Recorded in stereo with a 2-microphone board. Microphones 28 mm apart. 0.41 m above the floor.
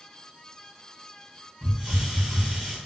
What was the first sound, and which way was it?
A hiss, 15° right (ahead or behind).